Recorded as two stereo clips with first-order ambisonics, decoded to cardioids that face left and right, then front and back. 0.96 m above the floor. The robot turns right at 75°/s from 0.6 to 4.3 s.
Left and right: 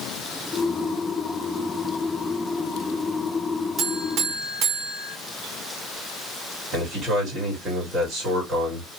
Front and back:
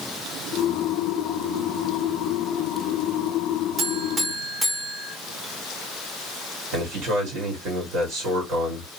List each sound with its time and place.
3.8 s a buzzer: 145° right, 1.3 m; by 5.2 s 105° right, 1.3 m
6.7 s a man speaking: 150° right, 3 m